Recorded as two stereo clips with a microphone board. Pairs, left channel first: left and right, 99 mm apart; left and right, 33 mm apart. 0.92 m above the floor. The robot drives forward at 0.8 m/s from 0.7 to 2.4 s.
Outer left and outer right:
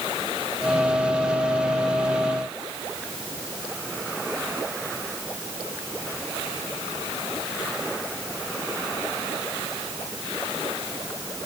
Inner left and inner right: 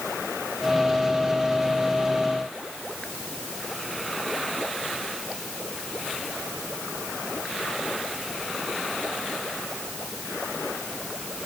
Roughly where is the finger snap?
I don't hear a finger snap.